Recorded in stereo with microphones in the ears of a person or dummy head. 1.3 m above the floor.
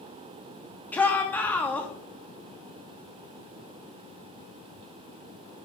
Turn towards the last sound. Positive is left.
turn(degrees=5)  # may be behind; listen again after turning